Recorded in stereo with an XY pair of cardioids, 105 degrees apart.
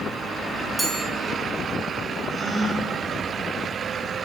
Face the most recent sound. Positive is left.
turn(degrees=-10)